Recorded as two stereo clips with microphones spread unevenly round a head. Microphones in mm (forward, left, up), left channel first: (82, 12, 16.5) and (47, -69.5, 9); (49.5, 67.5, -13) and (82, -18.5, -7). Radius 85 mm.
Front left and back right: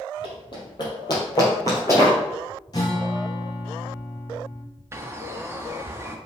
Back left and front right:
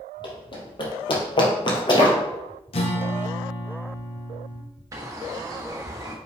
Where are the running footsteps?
90° left, 3 m; by 2.2 s 125° left, 2.5 m.